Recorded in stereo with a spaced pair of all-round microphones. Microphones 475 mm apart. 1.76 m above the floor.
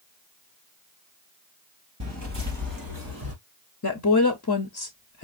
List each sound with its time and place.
2.0 s footsteps: 30° right (ahead or behind), 2.0 m; by 3.3 s 45° right (ahead or behind), 2.5 m
3.8 s a woman speaking: 35° left (ahead or behind), 0.7 m